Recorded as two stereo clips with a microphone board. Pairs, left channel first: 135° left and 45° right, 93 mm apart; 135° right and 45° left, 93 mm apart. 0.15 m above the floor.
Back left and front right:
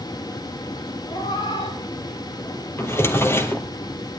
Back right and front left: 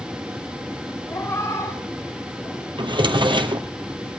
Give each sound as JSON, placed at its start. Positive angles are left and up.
{"t": 1.1, "sound": "a cat meowing", "azimuth_deg": 160, "distance_m": 5.0}
{"t": 2.8, "sound": "a drawer", "azimuth_deg": 70, "distance_m": 1.7}